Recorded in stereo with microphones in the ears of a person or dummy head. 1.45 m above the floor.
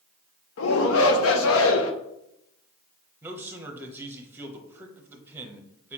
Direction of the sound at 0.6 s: 65° left (ahead or behind).